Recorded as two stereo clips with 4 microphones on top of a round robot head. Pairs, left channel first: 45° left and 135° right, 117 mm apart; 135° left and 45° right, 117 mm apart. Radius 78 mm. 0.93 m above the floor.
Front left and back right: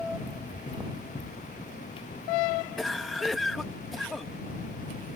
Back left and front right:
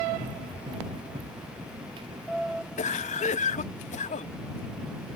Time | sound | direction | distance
0.2 | running footsteps | straight ahead | ?
2.8 | a cough | 135° left | ?